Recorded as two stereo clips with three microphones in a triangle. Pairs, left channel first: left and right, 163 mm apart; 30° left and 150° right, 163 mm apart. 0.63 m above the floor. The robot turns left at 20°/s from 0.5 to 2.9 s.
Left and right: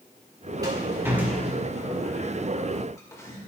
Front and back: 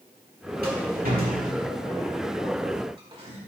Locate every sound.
0.6 s a rattle: 155° right, 2 m; by 3.4 s 160° left, 2 m